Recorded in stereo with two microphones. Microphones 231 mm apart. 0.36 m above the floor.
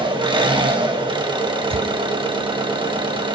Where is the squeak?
25° right (ahead or behind), 0.6 m.